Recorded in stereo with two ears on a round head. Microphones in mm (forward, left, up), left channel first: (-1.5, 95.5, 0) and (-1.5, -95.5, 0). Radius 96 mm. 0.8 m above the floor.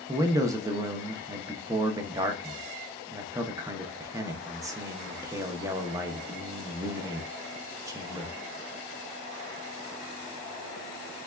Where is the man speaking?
15° right (ahead or behind), 0.5 m.